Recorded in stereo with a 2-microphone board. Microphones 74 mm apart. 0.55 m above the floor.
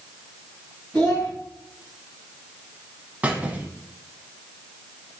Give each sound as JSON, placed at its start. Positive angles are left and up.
{"t": 0.9, "sound": "a child speaking", "side_deg": 10, "distance_m": 2.5}
{"t": 3.2, "sound": "a squeak", "side_deg": -20, "distance_m": 0.8}